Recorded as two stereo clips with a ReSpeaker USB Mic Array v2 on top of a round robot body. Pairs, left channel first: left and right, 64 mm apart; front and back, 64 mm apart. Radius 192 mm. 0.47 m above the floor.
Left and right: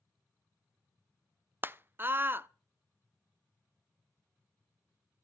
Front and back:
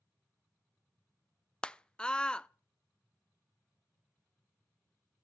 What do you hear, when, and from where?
1.6 s a scream: 65° right, 0.8 m